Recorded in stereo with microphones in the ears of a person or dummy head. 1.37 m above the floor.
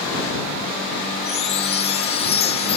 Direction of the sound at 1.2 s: 25° left (ahead or behind).